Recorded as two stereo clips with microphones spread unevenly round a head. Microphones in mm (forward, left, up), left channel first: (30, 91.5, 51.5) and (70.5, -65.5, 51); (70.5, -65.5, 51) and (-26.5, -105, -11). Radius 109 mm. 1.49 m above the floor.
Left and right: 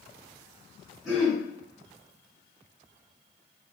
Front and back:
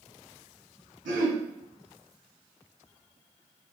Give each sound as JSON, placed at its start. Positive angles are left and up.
{"t": 1.1, "sound": "throat clearing", "azimuth_deg": -165, "distance_m": 2.0}